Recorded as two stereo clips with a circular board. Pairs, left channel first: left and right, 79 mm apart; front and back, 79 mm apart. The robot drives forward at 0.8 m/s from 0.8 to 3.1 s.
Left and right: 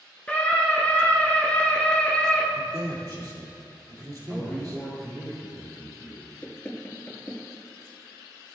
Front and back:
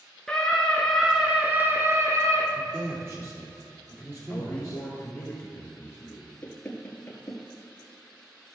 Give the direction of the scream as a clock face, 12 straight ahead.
10 o'clock.